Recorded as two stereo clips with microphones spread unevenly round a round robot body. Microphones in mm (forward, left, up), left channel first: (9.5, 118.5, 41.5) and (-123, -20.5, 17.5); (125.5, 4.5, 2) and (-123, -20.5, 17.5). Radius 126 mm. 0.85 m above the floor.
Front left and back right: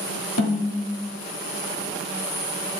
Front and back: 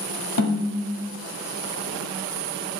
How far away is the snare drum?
About 1.4 m.